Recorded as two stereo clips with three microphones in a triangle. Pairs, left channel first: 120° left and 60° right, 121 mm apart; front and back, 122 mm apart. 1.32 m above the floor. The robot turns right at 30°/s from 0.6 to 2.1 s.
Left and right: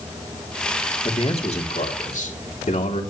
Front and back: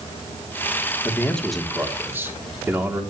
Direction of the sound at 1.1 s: 75° left.